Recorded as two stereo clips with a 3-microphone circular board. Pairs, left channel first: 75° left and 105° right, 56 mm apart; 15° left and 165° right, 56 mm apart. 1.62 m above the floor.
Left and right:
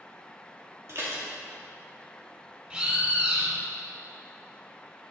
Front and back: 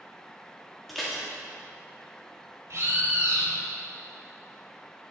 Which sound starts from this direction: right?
Dishes clattering, at 0.9 s.